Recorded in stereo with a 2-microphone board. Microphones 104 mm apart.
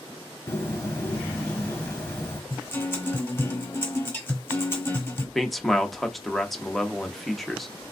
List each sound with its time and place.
0.5 s a bird: 25° left (ahead or behind), 1.3 m
2.5 s a guitar: 20° left (ahead or behind), 1.4 m
5.3 s a man speaking: centre (ahead or behind), 0.7 m